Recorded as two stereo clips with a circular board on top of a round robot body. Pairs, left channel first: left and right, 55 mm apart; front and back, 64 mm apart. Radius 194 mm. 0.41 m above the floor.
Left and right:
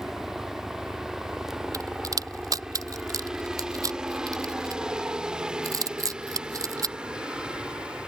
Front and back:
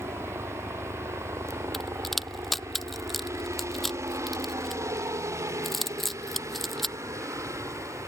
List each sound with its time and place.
0.0 s a helicopter: 170° right; by 8.1 s 160° right
1.7 s a crack: 85° right